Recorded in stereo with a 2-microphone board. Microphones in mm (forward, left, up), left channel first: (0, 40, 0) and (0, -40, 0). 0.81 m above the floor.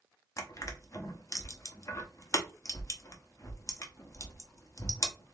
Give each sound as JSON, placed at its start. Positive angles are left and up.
{"t": 0.4, "sound": "crushing", "side_deg": 45, "distance_m": 0.9}